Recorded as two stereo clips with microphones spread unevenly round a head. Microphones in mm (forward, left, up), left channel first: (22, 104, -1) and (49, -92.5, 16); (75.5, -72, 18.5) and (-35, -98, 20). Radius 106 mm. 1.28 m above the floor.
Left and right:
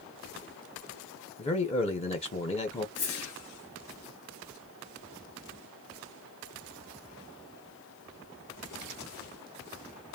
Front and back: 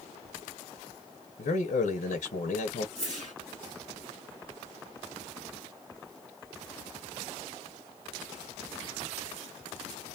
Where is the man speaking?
35° left, 0.7 m.